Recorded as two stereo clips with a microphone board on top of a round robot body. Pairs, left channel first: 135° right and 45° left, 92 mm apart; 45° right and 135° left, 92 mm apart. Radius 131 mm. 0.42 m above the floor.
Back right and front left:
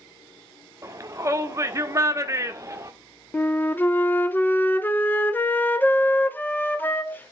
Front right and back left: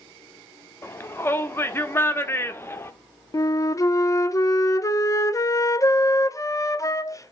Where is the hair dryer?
No hair dryer in this recording.